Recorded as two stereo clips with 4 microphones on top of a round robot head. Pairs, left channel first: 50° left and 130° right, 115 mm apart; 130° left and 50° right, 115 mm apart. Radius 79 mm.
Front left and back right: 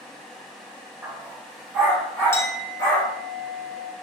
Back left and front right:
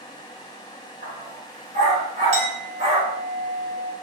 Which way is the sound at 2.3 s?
20° right.